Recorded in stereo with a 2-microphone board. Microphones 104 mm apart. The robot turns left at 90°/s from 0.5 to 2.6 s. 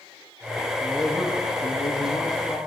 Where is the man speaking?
175° left, 1.9 m; by 2.6 s 15° left, 1.9 m.